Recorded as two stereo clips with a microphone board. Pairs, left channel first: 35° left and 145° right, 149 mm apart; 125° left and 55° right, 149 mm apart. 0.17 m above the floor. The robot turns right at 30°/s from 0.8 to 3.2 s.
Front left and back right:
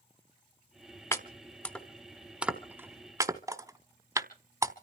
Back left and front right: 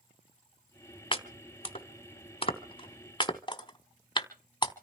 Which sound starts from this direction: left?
Chopping, at 1.1 s.